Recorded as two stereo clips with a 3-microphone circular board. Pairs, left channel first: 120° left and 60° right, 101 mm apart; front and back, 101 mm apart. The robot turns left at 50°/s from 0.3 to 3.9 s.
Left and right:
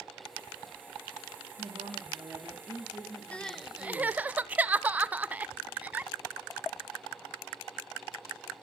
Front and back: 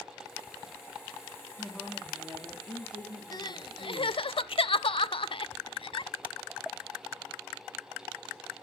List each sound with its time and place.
1.6 s a woman speaking: 80° right, 4.5 m; by 4.3 s 165° left, 4.5 m
3.3 s crying: 45° left, 0.5 m; by 6.1 s 15° left, 0.5 m